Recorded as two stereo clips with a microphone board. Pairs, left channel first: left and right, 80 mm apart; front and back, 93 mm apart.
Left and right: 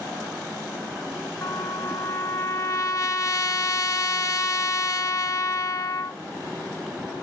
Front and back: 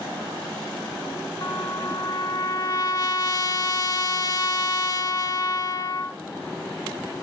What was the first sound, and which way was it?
A trumpet, 45° left.